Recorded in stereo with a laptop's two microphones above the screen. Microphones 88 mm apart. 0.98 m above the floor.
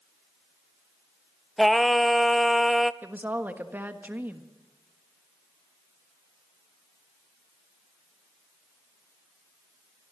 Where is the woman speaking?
20° right (ahead or behind), 1.4 m.